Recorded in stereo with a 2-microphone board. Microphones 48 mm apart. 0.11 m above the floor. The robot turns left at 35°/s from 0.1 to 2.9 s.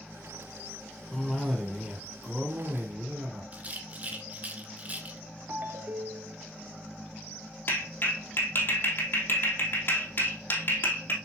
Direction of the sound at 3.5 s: 30° right (ahead or behind).